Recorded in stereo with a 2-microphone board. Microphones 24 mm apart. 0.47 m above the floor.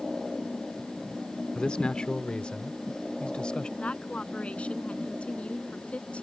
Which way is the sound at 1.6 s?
40° left (ahead or behind).